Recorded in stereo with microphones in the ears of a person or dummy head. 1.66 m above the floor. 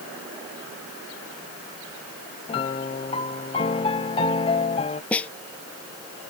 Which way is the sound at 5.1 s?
10° left (ahead or behind).